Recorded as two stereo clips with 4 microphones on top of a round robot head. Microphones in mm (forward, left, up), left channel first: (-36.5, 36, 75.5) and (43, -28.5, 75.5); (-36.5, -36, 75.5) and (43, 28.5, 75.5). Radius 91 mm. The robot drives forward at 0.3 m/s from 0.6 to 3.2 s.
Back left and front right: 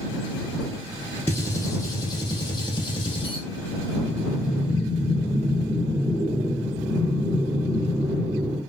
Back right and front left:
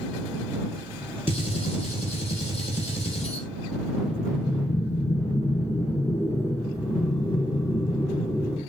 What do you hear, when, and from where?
1.3 s a gunshot: 155° right, 0.6 m; by 3.5 s 170° right, 1.0 m
3.9 s breathing: 85° right, 2 m